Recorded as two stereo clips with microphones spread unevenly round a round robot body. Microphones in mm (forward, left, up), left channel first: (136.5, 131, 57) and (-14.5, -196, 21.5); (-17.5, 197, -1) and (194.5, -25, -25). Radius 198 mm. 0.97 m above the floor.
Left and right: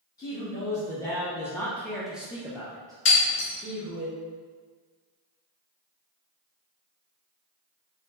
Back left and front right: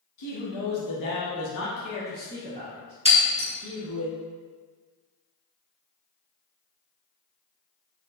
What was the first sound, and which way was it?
A man speaking, 145° left.